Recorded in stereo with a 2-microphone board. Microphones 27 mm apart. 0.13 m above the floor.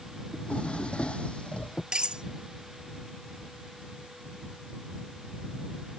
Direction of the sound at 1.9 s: 35° right (ahead or behind).